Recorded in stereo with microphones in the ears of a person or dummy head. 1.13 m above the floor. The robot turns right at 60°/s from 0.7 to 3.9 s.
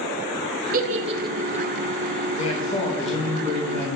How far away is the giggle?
About 0.5 m.